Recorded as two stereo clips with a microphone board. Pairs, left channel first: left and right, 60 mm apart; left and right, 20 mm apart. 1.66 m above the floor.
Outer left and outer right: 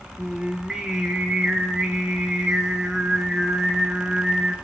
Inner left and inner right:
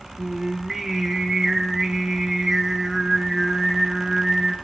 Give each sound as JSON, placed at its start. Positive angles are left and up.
{"t": 0.2, "sound": "singing", "side_deg": -10, "distance_m": 0.8}